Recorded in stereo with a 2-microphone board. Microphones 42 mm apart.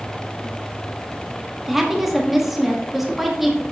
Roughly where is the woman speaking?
Centre.